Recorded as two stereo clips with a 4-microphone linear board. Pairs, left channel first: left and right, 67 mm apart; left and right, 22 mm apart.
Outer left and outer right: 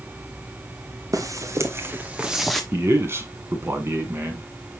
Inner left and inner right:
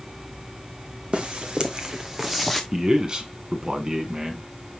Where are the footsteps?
55° right (ahead or behind), 1.9 m; by 2.6 s 5° left (ahead or behind), 1.4 m.